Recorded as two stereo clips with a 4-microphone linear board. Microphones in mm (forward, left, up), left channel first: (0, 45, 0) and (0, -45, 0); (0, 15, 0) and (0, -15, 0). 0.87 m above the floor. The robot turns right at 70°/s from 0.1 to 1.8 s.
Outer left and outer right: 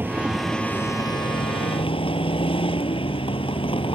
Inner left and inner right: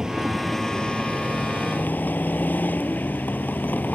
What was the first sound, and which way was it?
A vehicle, 25° right.